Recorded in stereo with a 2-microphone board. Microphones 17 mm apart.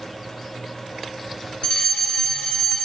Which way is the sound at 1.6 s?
50° left (ahead or behind).